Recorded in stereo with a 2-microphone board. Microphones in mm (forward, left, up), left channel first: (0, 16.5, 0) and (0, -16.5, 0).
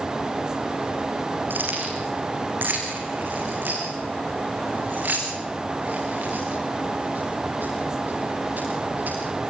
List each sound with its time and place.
1.5 s keys jangling: 80° right, 7.5 m; by 9.1 s 65° right (ahead or behind), 15.5 m